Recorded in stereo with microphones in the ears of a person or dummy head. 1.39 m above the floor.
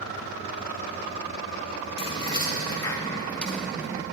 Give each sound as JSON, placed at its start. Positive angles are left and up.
{"t": 2.0, "sound": "keys jangling", "side_deg": 20, "distance_m": 1.7}